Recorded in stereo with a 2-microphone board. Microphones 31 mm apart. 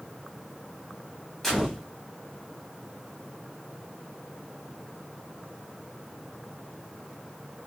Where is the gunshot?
15° left (ahead or behind), 1.1 m.